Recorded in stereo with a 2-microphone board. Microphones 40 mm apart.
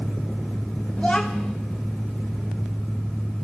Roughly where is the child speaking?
Centre.